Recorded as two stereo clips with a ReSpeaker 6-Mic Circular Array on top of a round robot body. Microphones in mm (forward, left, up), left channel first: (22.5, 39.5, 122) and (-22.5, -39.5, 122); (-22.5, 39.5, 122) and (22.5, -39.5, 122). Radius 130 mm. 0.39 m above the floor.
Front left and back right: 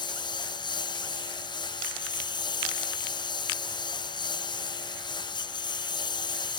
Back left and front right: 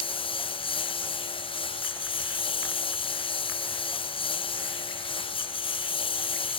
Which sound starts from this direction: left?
A lawn mower, at 0.0 s.